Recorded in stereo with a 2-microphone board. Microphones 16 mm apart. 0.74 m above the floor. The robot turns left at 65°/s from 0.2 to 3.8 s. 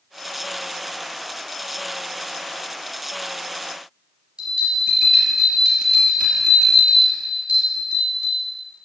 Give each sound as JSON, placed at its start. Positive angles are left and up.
{"t": 4.4, "sound": "a bell", "side_deg": -70, "distance_m": 3.5}